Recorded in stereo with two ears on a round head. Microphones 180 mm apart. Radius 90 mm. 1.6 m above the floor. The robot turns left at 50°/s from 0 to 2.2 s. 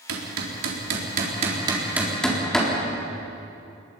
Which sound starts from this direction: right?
Hammering, at 0.1 s.